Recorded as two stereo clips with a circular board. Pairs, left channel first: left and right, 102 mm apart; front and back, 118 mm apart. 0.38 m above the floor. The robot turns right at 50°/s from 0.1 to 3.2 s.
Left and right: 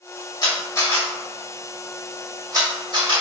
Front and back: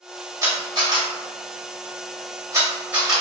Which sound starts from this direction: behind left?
A camera shutter, at 0.4 s.